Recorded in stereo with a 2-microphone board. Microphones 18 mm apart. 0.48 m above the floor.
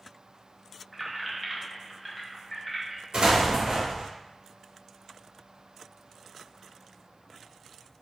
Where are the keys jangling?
5° right (ahead or behind), 0.6 m; by 3.0 s 15° left (ahead or behind), 1.2 m.